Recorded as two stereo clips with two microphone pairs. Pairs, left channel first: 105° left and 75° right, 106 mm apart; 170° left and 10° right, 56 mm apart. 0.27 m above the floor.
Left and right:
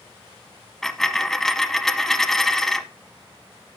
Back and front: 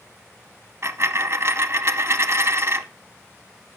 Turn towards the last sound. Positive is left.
turn(degrees=15)